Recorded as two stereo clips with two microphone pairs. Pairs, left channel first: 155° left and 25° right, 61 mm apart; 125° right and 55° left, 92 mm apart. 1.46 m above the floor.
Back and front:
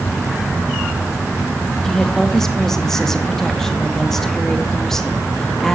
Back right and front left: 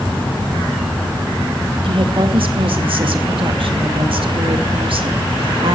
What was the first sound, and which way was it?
A woman speaking, 75° left.